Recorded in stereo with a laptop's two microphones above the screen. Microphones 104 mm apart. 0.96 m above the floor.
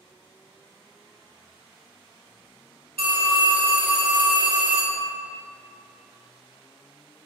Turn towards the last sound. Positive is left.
turn(degrees=-70)  # may be behind; listen again after turning